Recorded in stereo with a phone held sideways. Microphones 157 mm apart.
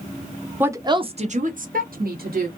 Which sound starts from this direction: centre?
A woman speaking, at 0.6 s.